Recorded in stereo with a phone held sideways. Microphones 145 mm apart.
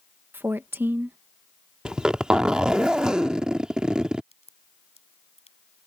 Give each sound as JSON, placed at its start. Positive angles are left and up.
{"t": 0.3, "sound": "a woman speaking", "side_deg": -15}
{"t": 1.9, "sound": "a zipper", "side_deg": -5}
{"t": 4.3, "sound": "a crack", "side_deg": 45}